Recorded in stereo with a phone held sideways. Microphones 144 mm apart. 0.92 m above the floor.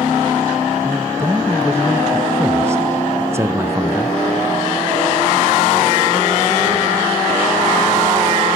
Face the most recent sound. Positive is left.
turn(degrees=-20)  # may be behind; listen again after turning